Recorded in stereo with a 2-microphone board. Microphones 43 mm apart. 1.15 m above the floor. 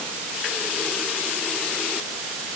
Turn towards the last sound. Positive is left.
No sound to turn to.